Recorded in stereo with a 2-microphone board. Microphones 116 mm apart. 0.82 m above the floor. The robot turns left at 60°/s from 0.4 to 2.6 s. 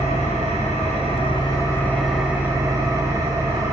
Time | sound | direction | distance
0.0 | an engine running | 105° left | 2.5 m